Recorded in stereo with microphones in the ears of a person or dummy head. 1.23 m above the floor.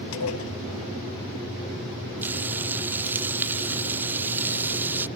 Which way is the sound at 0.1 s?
85° left.